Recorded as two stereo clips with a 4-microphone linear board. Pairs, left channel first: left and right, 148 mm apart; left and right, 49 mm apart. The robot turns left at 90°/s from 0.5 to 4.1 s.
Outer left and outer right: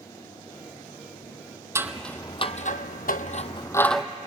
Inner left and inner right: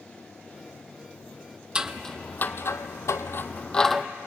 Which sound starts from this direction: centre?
Scissors, at 1.8 s.